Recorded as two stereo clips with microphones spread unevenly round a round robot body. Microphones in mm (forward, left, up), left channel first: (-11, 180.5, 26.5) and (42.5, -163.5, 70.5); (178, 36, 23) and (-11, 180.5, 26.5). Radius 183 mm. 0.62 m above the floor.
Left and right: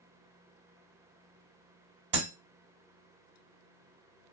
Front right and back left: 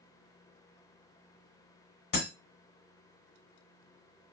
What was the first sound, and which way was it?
Breaking glass, 45° right.